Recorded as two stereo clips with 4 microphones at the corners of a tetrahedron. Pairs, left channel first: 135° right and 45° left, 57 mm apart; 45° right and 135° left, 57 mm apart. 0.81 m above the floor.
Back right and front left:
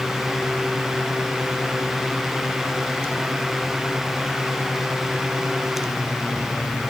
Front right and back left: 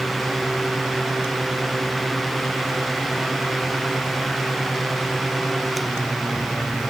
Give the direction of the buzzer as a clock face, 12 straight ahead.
I don't hear a buzzer.